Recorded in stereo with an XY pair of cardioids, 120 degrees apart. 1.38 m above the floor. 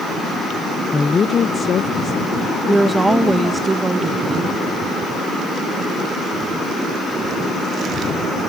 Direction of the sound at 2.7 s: 15° right.